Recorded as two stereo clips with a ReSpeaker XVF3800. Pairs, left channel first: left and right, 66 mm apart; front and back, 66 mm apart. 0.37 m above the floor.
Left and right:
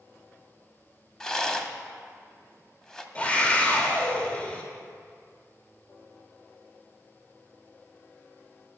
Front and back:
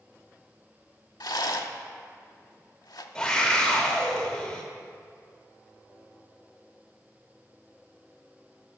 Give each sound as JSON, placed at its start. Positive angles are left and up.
{"t": 1.2, "sound": "a rattle", "azimuth_deg": 10, "distance_m": 0.6}
{"t": 3.1, "sound": "a scream", "azimuth_deg": 60, "distance_m": 0.8}